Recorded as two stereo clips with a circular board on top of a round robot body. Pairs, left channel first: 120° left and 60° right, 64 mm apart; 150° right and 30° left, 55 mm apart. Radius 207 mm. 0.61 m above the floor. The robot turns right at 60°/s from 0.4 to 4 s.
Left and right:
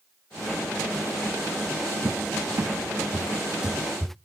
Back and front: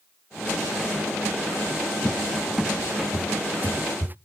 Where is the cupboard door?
85° right, 0.6 m; by 4.2 s 35° left, 0.6 m.